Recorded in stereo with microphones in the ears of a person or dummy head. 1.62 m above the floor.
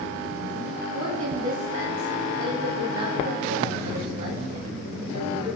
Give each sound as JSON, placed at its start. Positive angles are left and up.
{"t": 0.9, "sound": "a woman speaking", "side_deg": -35, "distance_m": 9.0}